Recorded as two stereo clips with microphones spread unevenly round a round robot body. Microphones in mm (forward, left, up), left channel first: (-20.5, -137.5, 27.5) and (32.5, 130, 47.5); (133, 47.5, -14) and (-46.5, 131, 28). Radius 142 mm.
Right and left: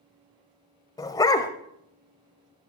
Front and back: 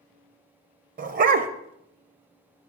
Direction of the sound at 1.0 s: Straight behind.